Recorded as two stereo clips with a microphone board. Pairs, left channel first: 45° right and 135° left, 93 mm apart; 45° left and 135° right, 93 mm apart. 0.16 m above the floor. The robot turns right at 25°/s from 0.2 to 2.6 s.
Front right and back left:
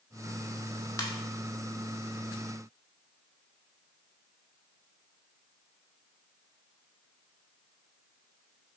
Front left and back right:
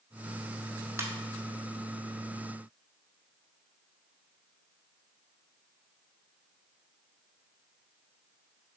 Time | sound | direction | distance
1.0 | a ringtone | 85° right | 0.6 m